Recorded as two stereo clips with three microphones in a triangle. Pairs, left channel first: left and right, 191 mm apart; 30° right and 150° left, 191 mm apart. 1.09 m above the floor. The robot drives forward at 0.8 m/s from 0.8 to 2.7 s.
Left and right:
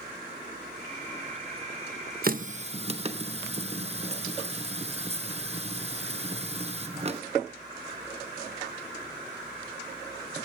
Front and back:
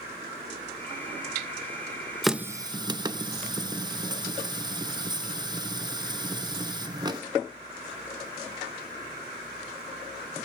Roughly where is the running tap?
Behind right.